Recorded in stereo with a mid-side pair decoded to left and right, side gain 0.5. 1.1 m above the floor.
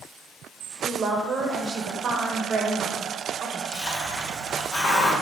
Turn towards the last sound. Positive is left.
turn(degrees=50)